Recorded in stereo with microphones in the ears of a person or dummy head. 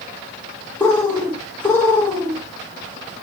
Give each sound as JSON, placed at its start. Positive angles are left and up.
{"t": 0.8, "sound": "a bird", "side_deg": 10, "distance_m": 1.2}